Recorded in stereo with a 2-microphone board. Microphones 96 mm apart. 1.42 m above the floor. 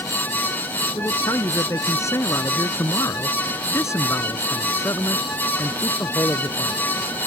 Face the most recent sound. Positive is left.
turn(degrees=25)  # may be behind; listen again after turning